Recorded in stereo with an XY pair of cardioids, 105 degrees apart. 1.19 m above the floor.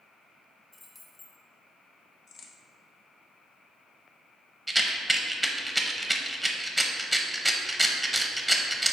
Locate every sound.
0.7 s keys jangling: 25° left, 1.9 m
2.3 s a crack: 65° left, 0.9 m
4.7 s a rattle: 5° right, 0.9 m